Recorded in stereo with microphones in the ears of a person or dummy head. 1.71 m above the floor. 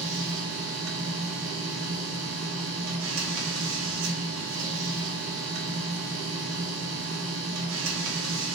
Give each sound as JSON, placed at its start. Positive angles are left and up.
{"t": 0.0, "sound": "a machine running", "side_deg": -80, "distance_m": 0.7}